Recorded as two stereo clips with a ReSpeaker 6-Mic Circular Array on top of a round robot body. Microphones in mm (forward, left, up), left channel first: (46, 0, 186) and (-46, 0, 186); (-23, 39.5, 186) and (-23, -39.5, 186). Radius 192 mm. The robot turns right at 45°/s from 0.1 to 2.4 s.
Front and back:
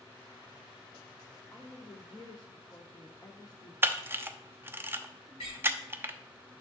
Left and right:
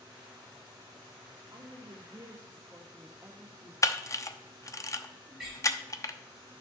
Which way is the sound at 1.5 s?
75° right.